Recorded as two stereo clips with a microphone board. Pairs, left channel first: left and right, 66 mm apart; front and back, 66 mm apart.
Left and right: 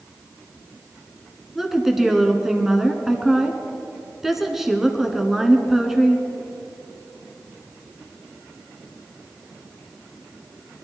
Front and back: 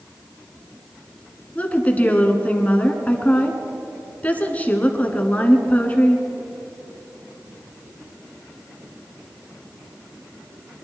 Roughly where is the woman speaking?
Ahead.